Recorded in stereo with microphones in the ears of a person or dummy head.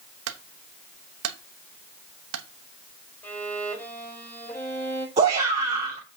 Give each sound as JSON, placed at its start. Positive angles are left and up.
{"t": 0.3, "sound": "a clunk", "side_deg": -75, "distance_m": 0.9}
{"t": 3.2, "sound": "a violin", "side_deg": 10, "distance_m": 4.5}
{"t": 5.2, "sound": "a shout", "side_deg": -35, "distance_m": 1.5}